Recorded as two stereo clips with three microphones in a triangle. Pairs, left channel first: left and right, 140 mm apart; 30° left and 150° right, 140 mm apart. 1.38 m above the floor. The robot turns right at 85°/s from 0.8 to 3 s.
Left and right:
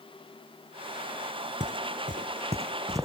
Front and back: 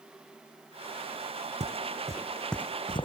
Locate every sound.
1.6 s footsteps: 115° right; by 3.0 s 20° right